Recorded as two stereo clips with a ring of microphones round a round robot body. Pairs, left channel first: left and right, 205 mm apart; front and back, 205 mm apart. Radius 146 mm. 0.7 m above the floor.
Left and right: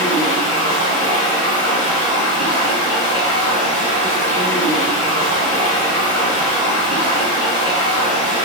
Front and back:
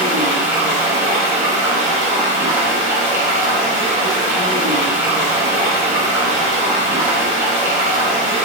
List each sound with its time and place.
0.0 s running water: 105° left, 2 m